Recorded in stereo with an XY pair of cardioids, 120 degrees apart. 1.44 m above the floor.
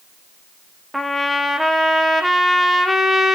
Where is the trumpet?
Straight ahead, 2 m.